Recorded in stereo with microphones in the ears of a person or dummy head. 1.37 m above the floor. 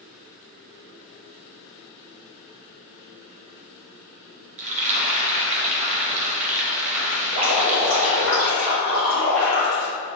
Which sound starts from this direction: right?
Frying, at 4.6 s.